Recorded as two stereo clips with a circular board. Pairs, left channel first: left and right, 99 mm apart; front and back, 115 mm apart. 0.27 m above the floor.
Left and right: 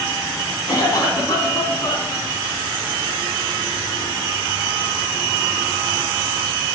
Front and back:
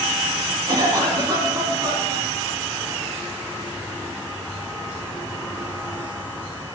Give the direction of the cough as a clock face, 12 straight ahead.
7 o'clock.